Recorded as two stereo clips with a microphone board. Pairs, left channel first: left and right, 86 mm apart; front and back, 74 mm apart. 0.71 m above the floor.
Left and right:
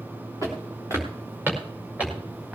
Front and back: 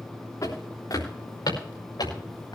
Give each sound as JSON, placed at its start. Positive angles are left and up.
{"t": 0.4, "sound": "footsteps", "azimuth_deg": -40, "distance_m": 6.5}